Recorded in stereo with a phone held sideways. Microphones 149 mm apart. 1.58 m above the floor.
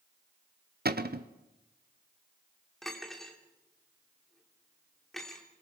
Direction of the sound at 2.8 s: 5° left (ahead or behind).